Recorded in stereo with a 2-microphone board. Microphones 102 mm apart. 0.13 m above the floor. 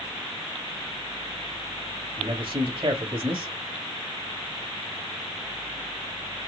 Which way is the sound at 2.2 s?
55° right (ahead or behind).